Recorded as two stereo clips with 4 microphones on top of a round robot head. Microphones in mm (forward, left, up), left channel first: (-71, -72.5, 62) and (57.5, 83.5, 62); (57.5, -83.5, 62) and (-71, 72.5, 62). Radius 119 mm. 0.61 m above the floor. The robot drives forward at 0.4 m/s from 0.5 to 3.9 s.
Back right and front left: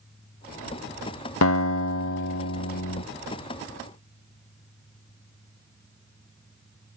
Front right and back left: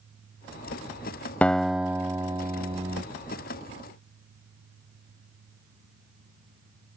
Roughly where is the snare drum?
No snare drum in this recording.